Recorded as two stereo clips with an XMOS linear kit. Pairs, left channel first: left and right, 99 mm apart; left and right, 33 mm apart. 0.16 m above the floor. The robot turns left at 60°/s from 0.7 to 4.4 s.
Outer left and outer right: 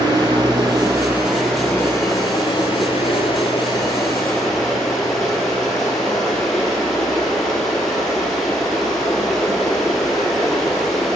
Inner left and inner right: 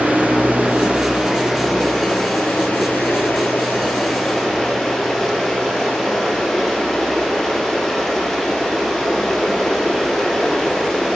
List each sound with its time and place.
0.0 s running water: 135° right, 1.2 m; by 11.2 s 5° left, 1.2 m